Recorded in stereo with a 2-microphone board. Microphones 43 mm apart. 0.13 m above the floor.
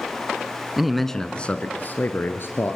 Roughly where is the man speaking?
Centre.